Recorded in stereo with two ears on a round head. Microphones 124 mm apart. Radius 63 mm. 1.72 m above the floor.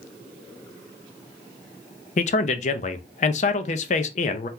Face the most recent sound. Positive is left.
turn(degrees=55)  # may be behind; listen again after turning